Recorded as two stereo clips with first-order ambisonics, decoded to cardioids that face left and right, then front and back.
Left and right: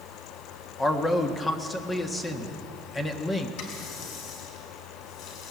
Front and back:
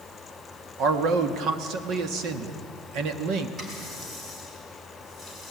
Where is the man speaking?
160° left, 1.3 m.